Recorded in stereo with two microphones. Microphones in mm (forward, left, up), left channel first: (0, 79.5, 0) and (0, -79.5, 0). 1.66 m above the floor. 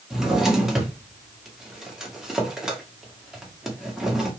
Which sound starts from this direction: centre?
A drawer, at 0.1 s.